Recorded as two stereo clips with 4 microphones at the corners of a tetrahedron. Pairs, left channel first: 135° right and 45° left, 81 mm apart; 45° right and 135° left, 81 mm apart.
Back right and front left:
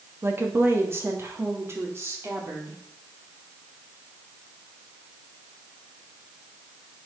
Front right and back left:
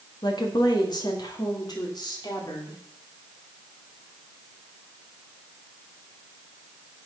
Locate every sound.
0.2 s a woman speaking: 15° right, 2 m; by 2.8 s 10° right, 4 m